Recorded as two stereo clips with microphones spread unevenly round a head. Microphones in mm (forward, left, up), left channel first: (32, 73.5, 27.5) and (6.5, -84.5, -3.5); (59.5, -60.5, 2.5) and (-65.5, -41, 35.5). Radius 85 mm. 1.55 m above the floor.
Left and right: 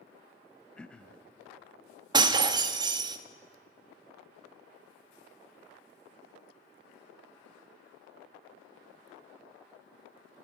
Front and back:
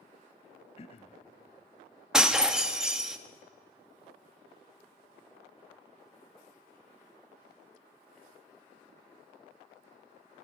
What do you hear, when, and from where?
0.8 s throat clearing: 25° left, 0.8 m
2.1 s breaking glass: 155° right, 1.0 m